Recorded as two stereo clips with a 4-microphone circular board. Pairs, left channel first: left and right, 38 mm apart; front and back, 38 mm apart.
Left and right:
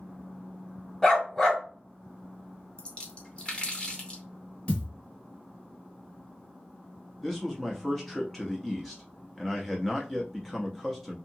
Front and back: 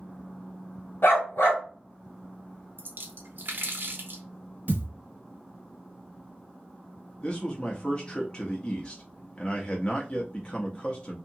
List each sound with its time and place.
1.0 s a dog barking: 15° left, 1.1 m
2.8 s a splash: 155° left, 0.7 m
4.7 s a thud: 140° left, 1.5 m
7.2 s a man speaking: 20° left, 0.6 m